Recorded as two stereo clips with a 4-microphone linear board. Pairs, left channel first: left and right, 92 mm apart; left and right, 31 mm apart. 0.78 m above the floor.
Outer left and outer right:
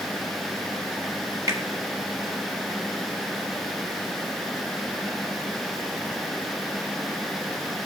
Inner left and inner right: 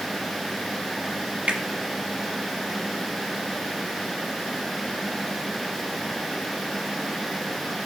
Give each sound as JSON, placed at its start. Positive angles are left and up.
{"t": 1.5, "sound": "a finger snap", "side_deg": -35, "distance_m": 1.3}